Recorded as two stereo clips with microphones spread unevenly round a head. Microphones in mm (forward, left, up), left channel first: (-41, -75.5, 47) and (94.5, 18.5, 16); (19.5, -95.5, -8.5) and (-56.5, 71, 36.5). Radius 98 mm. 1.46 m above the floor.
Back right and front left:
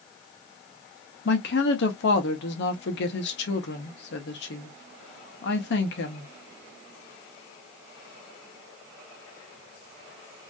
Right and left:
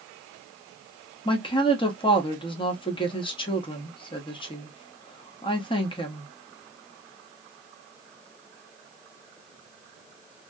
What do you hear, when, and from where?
1.2 s a woman speaking: 135° right, 1.1 m